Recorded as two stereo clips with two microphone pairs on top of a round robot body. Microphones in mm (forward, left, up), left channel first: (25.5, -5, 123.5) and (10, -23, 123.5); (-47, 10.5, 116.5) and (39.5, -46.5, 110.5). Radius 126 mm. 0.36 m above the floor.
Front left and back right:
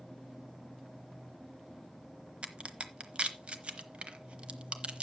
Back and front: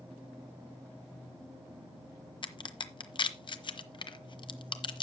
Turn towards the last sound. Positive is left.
turn(degrees=-170)